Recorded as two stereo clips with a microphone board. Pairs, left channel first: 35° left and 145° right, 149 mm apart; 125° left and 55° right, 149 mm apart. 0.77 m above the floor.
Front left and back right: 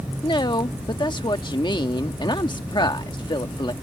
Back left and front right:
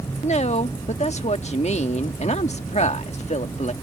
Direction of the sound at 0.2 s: 90° left.